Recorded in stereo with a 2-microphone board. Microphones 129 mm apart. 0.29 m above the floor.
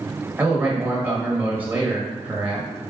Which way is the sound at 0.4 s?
15° right (ahead or behind).